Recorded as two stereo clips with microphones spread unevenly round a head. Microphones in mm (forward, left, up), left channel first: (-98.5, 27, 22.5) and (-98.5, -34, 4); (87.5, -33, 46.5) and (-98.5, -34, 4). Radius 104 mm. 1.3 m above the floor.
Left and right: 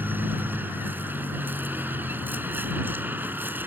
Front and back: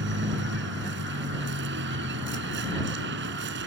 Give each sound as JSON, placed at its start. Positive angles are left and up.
{"t": 0.0, "sound": "a vehicle", "azimuth_deg": -150}